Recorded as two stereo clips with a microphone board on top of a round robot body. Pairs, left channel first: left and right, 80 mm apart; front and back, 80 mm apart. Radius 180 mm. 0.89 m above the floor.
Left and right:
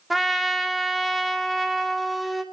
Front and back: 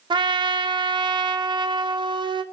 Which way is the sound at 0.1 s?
Straight behind.